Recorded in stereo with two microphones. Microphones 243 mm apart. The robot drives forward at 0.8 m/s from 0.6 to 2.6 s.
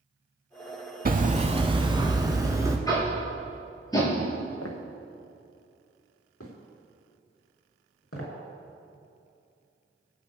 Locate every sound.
1.1 s hammering: 40° right (ahead or behind), 0.7 m; by 2.8 s 15° right (ahead or behind), 1.8 m
2.9 s tapping: 15° left (ahead or behind), 5 m
4.6 s footsteps: 70° left (ahead or behind), 2.5 m; by 8.3 s 65° left (ahead or behind), 6 m